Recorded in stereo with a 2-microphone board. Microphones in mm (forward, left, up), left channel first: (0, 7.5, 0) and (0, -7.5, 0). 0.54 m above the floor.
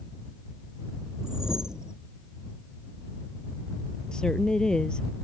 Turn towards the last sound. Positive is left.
turn(degrees=65)  # may be behind; listen again after turning